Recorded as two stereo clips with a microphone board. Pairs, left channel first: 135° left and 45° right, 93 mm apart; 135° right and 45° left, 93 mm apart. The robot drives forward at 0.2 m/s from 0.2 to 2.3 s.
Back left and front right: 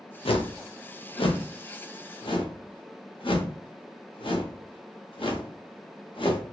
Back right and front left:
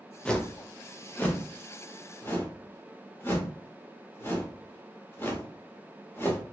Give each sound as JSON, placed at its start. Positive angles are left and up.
{"t": 0.2, "sound": "a whoosh", "azimuth_deg": 145, "distance_m": 0.6}